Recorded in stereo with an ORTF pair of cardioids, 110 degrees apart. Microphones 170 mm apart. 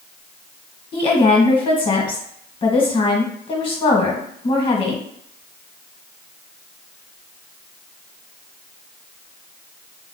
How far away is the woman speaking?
About 1.8 m.